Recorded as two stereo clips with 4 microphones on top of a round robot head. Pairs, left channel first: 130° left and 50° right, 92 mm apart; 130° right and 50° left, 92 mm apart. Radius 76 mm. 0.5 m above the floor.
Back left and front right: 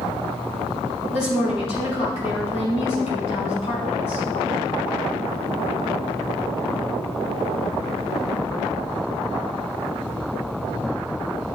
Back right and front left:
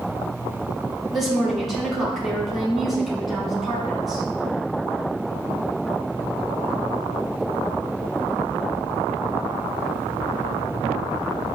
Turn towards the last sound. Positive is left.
turn(degrees=135)